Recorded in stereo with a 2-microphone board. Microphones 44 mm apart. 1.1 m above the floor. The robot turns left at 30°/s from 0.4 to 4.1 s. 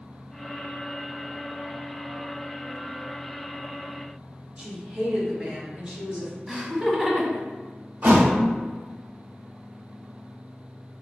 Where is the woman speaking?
25° right (ahead or behind), 1.5 m.